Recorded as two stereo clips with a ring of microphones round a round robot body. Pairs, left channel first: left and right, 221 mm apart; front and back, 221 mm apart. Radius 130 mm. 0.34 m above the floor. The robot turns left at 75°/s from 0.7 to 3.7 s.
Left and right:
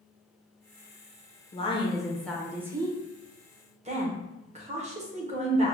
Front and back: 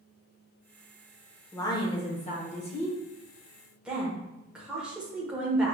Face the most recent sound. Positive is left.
turn(degrees=-100)